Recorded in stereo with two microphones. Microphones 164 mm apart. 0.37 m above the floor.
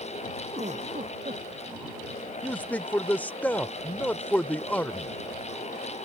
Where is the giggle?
45° right (ahead or behind).